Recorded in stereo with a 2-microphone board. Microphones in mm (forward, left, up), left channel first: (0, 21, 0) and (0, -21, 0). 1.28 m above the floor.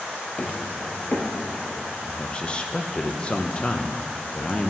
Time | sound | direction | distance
0.4 | footsteps | 35° left (ahead or behind) | 1.5 m
2.0 | a man speaking | 25° left (ahead or behind) | 0.8 m